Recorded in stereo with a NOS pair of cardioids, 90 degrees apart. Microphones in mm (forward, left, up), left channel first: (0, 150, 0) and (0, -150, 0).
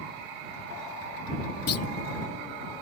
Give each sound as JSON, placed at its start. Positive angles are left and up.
{"t": 1.7, "sound": "a clunk", "azimuth_deg": 55}